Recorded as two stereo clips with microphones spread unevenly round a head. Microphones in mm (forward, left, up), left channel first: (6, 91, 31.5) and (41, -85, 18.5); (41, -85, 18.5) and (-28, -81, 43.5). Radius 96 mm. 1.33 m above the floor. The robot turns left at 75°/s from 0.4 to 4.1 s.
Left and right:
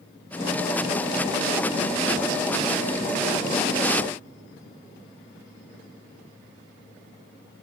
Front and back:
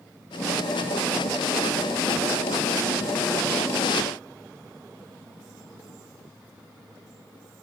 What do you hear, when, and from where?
Only background noise.